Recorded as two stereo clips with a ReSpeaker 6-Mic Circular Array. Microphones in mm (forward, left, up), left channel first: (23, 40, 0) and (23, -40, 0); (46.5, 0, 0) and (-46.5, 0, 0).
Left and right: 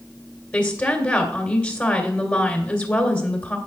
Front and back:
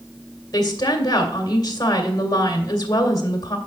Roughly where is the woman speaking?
Ahead left.